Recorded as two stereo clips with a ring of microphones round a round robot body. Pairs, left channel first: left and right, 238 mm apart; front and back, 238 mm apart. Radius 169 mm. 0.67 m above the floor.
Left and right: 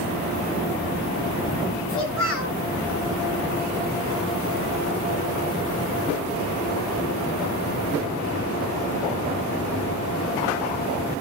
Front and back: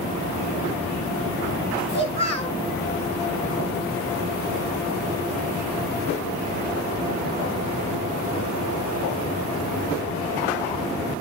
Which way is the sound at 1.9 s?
65° left.